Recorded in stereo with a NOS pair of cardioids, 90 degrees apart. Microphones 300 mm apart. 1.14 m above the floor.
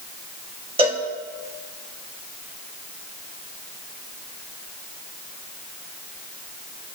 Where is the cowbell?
20° right, 1.3 m.